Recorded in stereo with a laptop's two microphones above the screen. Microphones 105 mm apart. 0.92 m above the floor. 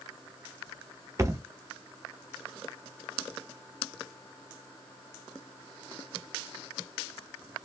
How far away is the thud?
About 0.5 m.